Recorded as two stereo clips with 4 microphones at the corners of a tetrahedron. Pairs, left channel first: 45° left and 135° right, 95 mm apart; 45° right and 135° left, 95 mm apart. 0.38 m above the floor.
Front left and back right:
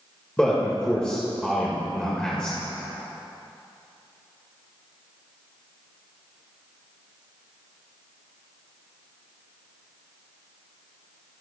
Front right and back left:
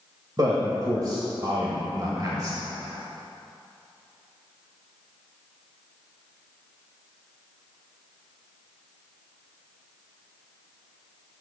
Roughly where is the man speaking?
Behind left.